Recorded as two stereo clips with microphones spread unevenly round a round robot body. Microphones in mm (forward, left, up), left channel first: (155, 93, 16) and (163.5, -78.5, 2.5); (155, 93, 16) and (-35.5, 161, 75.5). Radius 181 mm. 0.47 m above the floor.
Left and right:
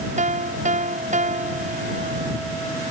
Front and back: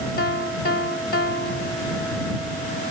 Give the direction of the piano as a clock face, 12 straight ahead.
2 o'clock.